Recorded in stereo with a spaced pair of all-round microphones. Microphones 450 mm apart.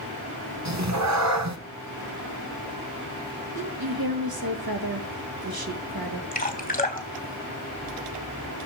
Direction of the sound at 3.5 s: 55° right (ahead or behind).